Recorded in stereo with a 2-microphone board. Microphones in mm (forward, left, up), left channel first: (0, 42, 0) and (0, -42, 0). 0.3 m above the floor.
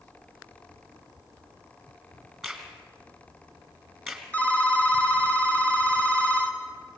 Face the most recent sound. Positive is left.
turn(degrees=15)  # may be behind; listen again after turning